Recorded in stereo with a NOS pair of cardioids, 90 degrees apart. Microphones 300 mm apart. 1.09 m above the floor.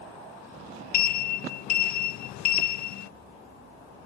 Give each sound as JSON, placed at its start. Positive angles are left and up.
{"t": 0.9, "sound": "a sliding door", "azimuth_deg": 70}